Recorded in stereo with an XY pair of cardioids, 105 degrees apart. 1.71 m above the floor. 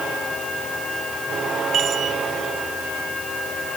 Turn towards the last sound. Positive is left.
turn(degrees=-60)